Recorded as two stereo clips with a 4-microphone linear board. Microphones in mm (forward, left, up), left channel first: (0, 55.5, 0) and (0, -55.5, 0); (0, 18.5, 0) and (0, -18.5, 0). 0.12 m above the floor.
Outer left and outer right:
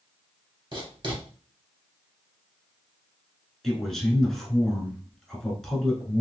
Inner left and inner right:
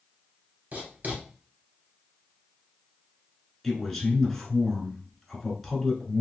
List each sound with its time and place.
0.7 s writing: 45° right (ahead or behind), 1.8 m
3.6 s a man speaking: 5° left (ahead or behind), 1.4 m